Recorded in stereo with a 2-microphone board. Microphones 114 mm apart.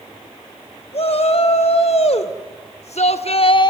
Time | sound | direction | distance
0.9 | a shout | 60° left (ahead or behind) | 3.5 m